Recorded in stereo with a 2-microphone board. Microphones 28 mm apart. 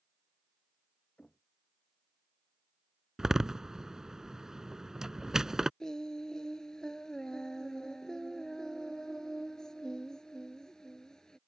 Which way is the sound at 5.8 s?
25° left (ahead or behind).